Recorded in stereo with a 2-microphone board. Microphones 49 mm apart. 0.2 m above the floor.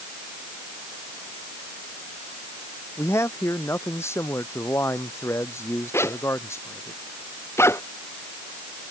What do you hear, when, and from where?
3.0 s a man speaking: 70° left (ahead or behind)
5.9 s a zipper: 65° left (ahead or behind)